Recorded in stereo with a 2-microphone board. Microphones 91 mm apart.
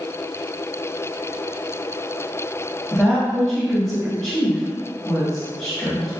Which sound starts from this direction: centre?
A woman speaking, at 2.9 s.